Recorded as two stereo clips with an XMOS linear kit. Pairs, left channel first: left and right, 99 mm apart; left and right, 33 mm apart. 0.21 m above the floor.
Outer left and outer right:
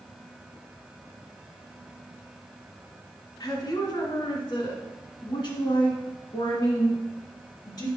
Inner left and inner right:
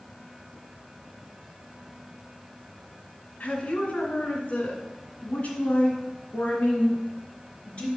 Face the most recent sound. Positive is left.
turn(degrees=45)  # may be behind; listen again after turning